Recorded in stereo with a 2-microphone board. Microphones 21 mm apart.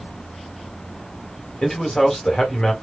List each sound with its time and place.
1.6 s a man speaking: 40° left (ahead or behind), 2.0 m